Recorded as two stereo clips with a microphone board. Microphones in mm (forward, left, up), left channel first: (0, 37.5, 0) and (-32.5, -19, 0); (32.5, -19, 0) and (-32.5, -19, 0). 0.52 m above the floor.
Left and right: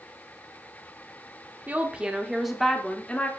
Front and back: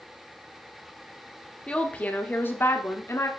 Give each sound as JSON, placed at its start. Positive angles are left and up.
{"t": 1.7, "sound": "a woman speaking", "azimuth_deg": -70, "distance_m": 1.1}